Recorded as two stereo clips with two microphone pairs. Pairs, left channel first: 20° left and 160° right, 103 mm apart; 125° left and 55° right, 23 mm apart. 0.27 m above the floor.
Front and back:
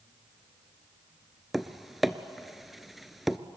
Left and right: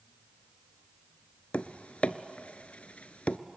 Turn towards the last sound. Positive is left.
turn(degrees=110)